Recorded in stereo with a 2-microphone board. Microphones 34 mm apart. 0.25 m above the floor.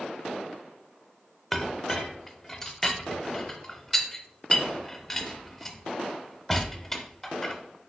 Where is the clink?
15° left (ahead or behind), 0.7 m.